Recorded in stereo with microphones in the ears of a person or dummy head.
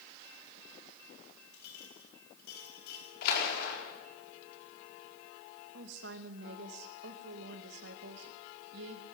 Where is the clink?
65° left (ahead or behind), 6.5 m.